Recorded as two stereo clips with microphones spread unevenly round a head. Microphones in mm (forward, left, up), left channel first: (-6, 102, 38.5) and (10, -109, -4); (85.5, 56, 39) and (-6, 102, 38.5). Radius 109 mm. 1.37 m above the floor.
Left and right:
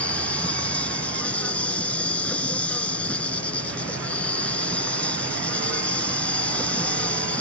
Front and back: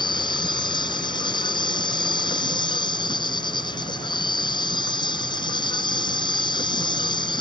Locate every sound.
0.0 s an insect: 15° left